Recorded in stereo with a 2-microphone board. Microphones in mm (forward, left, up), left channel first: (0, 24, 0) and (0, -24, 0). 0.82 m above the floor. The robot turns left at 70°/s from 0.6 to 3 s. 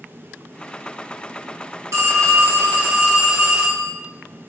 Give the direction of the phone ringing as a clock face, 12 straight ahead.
3 o'clock.